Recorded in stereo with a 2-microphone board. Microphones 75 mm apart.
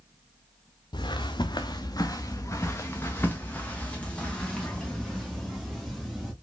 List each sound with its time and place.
0.9 s footsteps: 85° left, 0.9 m; by 6.3 s 5° left (ahead or behind), 3 m